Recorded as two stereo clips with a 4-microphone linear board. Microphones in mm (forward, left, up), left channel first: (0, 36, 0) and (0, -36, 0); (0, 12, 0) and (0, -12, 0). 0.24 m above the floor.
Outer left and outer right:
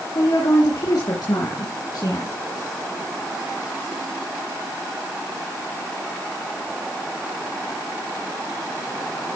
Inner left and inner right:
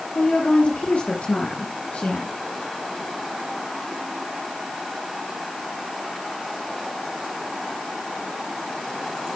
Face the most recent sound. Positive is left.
turn(degrees=65)  # may be behind; listen again after turning